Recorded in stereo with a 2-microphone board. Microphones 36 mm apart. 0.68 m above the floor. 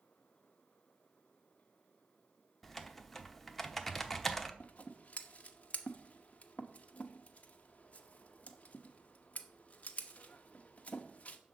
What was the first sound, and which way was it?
Typing on a keyboard, 10° left (ahead or behind).